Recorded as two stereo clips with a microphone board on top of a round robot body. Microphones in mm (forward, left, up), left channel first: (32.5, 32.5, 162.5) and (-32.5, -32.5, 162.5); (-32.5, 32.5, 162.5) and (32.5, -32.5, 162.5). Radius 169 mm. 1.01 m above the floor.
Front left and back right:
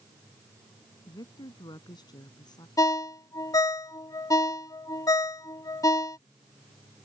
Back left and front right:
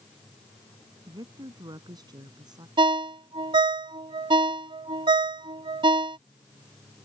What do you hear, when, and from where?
1.1 s a woman speaking: straight ahead
2.8 s a ringtone: 10° right